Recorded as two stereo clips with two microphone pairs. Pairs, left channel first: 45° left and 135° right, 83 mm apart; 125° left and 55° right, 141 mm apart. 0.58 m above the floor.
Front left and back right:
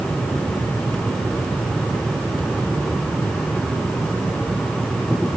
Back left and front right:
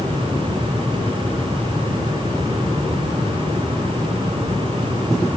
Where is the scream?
No scream in this recording.